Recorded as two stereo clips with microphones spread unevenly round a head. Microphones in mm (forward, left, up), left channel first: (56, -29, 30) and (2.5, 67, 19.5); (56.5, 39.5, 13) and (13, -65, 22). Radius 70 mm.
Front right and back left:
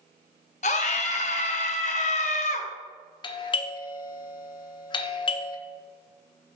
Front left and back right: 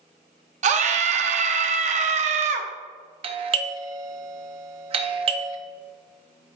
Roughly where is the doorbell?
Right.